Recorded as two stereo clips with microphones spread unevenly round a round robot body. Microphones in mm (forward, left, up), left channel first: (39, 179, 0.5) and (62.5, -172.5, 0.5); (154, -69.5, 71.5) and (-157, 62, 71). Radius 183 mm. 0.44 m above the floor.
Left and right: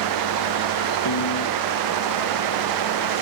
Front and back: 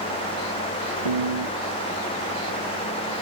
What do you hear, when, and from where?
1.1 s a piano: 140° left